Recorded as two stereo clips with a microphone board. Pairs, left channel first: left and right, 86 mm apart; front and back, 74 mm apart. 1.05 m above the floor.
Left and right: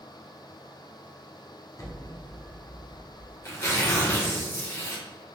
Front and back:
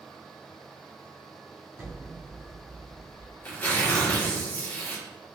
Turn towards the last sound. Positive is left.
turn(degrees=50)